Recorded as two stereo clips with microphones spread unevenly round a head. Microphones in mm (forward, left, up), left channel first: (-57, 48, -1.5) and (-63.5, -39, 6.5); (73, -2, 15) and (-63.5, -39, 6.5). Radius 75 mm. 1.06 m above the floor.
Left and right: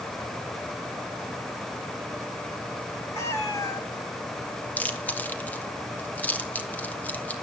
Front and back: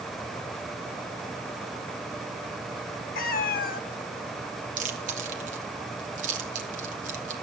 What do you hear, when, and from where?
3.1 s a cat meowing: 15° left, 1.3 m
4.8 s chewing: 155° left, 2.5 m